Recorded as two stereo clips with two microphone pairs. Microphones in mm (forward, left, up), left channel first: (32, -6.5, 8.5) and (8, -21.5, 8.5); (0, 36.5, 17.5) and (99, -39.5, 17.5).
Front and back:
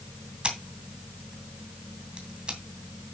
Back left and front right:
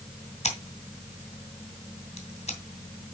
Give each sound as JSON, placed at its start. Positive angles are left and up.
{"t": 0.4, "sound": "scissors", "azimuth_deg": 160, "distance_m": 2.5}